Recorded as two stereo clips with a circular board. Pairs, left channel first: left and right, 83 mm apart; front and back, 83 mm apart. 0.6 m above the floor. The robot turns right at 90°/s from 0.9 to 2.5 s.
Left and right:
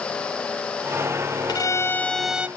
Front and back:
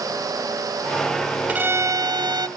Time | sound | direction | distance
1.5 | a violin | 110° left | 0.8 m